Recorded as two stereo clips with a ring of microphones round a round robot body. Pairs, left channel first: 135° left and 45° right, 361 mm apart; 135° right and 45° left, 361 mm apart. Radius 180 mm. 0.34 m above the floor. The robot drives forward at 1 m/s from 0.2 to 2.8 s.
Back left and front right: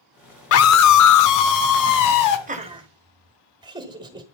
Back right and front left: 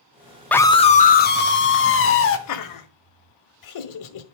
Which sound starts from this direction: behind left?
A scream, at 0.5 s.